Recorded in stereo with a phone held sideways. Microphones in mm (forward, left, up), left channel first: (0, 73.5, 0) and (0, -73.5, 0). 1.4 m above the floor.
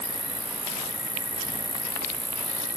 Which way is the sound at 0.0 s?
35° right (ahead or behind).